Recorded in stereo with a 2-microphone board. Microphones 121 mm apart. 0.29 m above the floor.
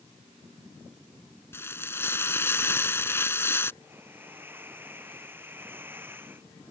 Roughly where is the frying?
Left.